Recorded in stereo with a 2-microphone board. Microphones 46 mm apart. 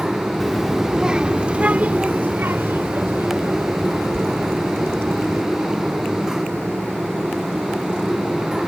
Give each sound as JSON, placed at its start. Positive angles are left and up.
{"t": 0.4, "sound": "a child speaking", "side_deg": 5}